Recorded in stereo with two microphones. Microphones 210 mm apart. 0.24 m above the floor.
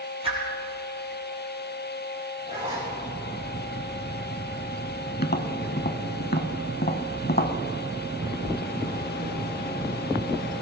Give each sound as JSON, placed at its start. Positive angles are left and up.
{"t": 0.2, "sound": "a whoosh", "side_deg": -25, "distance_m": 3.0}
{"t": 2.5, "sound": "a zipper", "side_deg": -30, "distance_m": 6.0}
{"t": 5.2, "sound": "tapping", "side_deg": 50, "distance_m": 0.7}